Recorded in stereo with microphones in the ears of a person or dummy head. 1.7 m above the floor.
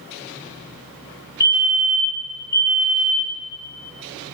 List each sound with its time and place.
1.4 s a fire alarm: 45° left (ahead or behind), 1.1 m